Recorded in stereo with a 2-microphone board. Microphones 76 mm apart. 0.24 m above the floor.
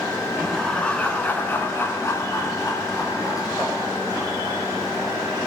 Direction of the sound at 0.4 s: 5° left (ahead or behind).